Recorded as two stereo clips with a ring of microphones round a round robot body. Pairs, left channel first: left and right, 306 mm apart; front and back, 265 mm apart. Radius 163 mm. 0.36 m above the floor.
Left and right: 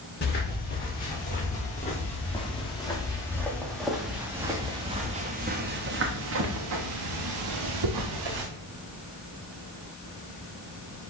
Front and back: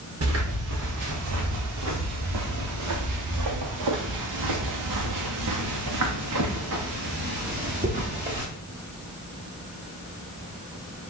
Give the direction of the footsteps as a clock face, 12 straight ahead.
7 o'clock.